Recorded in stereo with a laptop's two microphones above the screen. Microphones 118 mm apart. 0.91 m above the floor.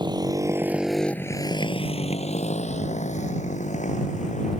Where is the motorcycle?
40° right (ahead or behind); by 4.6 s 90° left.